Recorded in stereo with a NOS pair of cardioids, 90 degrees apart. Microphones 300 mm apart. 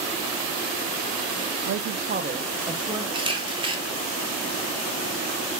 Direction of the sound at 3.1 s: 15° right.